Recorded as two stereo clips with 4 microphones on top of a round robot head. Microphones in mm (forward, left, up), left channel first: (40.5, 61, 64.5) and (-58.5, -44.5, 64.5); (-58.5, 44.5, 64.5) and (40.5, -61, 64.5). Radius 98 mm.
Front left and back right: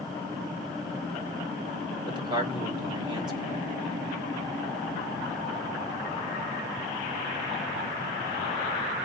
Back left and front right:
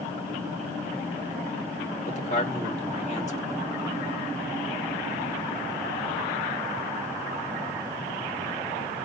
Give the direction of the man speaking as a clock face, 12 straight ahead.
6 o'clock.